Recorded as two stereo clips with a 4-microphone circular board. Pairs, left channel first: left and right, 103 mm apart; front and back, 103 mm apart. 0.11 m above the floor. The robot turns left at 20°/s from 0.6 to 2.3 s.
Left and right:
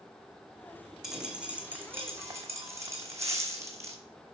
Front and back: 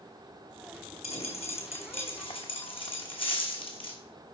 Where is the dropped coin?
5° right, 1.3 m; by 4.0 s 30° right, 1.3 m.